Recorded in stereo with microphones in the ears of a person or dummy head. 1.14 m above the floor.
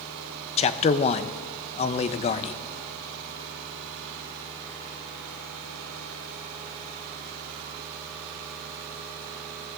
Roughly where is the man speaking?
Left.